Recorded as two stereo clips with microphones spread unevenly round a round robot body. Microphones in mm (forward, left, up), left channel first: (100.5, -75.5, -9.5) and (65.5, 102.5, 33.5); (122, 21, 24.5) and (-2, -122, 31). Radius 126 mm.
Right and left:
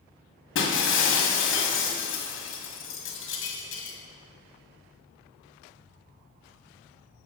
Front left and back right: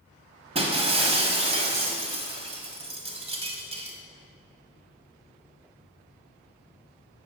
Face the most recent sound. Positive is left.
turn(degrees=-70)